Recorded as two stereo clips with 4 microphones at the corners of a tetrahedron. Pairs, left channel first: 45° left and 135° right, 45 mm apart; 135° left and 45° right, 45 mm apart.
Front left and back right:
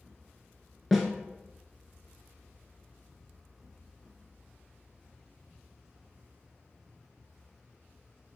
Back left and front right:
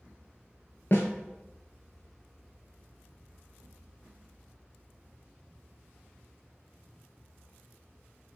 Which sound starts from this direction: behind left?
A snare drum, at 0.9 s.